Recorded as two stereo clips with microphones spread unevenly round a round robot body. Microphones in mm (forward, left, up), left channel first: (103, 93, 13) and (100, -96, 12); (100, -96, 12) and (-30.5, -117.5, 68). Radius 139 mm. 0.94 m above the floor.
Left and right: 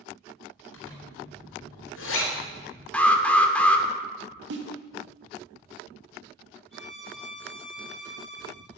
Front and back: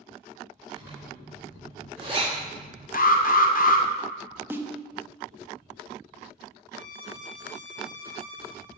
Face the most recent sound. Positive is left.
turn(degrees=0)